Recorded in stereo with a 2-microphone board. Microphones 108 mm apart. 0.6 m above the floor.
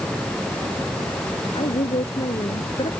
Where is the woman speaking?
70° left (ahead or behind).